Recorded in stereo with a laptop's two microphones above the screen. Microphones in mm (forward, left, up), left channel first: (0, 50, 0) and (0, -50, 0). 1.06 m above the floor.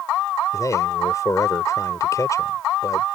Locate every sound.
0.5 s a man speaking: 35° left (ahead or behind)